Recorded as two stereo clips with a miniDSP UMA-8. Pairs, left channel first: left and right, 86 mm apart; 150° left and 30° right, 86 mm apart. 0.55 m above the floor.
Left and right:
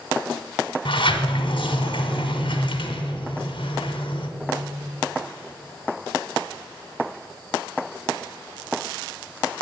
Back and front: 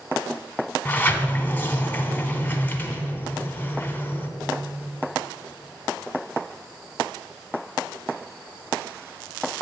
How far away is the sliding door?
About 0.9 m.